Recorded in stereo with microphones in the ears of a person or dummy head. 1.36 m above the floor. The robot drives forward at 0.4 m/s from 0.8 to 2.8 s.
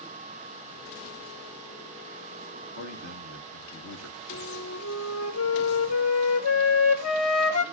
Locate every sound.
2.8 s a man speaking: 80° left, 1.6 m
4.3 s a flute: 80° left, 1.0 m